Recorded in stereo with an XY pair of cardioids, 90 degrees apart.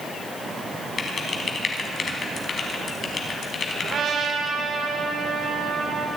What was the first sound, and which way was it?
Typing on a keyboard, 45° left.